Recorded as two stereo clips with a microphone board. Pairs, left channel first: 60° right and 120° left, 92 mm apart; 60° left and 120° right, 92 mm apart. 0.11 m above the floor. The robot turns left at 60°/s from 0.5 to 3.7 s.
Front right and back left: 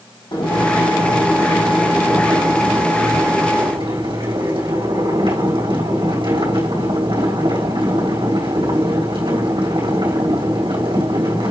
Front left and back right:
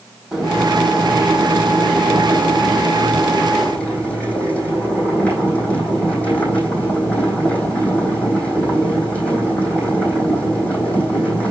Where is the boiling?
35° right, 4.5 m; by 11.5 s 135° left, 4.5 m.